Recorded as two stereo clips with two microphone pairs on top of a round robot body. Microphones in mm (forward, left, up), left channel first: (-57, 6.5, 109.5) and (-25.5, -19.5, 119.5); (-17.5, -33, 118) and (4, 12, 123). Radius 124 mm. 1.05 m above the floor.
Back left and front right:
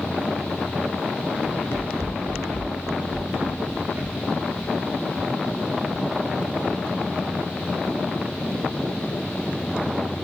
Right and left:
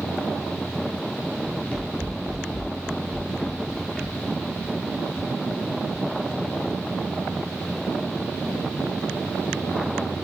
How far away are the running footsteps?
About 1.7 m.